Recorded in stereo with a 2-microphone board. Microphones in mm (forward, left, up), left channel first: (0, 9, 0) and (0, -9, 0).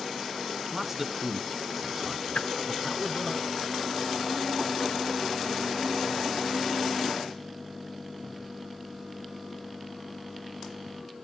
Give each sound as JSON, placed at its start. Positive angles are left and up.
{"t": 0.7, "sound": "a man speaking", "side_deg": -15, "distance_m": 1.3}
{"t": 2.4, "sound": "a whoosh", "side_deg": 70, "distance_m": 1.0}